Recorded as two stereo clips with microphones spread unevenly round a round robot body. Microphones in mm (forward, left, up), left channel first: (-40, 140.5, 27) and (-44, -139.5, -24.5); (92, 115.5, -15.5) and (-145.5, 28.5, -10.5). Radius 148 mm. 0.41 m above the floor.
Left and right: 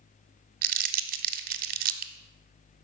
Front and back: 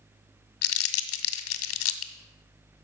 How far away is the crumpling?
About 0.6 m.